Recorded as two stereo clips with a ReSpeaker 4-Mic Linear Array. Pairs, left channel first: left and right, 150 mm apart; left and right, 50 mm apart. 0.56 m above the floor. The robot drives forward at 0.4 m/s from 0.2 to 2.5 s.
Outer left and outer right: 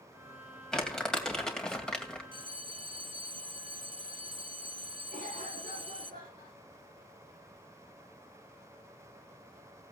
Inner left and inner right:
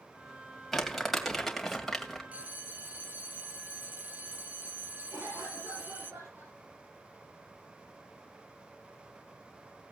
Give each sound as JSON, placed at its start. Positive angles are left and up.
{"t": 0.7, "sound": "crumpling", "side_deg": 5, "distance_m": 2.5}
{"t": 2.3, "sound": "a bell", "side_deg": -35, "distance_m": 1.0}
{"t": 5.1, "sound": "a cough", "side_deg": -70, "distance_m": 9.5}